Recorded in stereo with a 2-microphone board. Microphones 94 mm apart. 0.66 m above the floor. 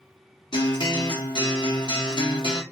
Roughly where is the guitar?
Left.